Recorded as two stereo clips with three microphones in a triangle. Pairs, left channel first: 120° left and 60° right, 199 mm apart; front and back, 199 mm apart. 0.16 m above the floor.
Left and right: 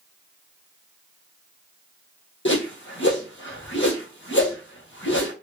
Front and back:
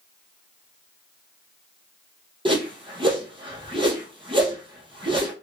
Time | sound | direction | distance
2.5 | a whoosh | 115° left | 1.6 m